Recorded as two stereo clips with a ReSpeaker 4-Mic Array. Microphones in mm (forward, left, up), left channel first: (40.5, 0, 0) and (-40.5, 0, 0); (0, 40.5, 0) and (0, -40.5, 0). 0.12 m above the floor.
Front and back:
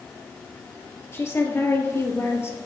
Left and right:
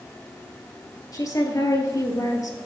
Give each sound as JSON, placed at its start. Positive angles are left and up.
{"t": 1.1, "sound": "a woman speaking", "azimuth_deg": 55, "distance_m": 2.0}